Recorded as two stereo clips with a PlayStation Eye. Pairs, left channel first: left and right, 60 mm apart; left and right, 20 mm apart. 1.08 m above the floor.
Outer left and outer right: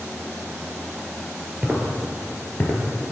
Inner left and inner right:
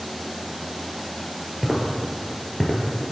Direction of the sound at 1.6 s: 25° right (ahead or behind).